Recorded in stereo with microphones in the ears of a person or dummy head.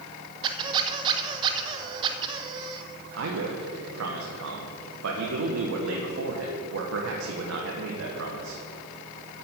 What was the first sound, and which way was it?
A squeak, 30° right (ahead or behind).